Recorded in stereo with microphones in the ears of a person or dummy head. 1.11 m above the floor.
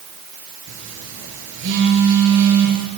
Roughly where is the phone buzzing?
Right.